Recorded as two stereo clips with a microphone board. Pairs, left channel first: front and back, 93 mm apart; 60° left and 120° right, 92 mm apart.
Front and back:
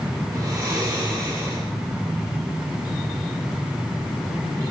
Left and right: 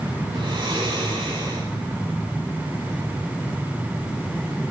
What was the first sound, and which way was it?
Snoring, 130° right.